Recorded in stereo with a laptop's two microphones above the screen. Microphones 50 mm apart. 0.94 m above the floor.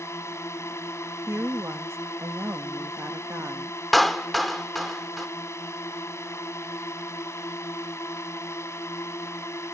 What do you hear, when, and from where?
0.0 s a drone: 80° left
1.3 s a woman speaking: 70° right (ahead or behind)
3.9 s a clap: centre (ahead or behind)